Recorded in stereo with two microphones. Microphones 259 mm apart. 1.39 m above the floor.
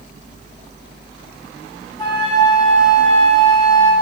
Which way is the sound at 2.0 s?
20° left (ahead or behind).